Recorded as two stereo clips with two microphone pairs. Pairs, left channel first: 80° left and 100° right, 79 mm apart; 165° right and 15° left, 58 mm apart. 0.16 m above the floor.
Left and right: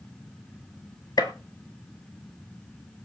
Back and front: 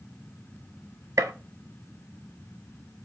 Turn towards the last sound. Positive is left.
turn(degrees=45)